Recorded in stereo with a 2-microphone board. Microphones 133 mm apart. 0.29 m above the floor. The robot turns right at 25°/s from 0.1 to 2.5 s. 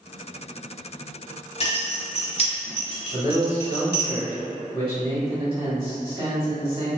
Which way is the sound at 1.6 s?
45° left (ahead or behind).